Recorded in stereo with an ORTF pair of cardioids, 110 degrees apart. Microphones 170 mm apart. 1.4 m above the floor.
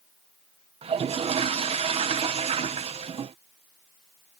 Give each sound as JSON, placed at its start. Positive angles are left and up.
{"t": 0.8, "sound": "a toilet flushing", "azimuth_deg": -35}